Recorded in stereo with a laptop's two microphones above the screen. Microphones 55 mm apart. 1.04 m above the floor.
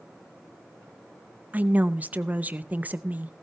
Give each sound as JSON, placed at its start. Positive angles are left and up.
{"t": 1.5, "sound": "a woman speaking", "side_deg": -35, "distance_m": 0.7}